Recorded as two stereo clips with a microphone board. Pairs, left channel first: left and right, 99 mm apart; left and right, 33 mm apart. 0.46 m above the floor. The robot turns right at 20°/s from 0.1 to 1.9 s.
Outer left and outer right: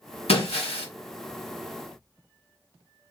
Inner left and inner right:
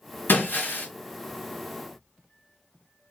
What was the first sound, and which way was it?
Breaking glass, 85° left.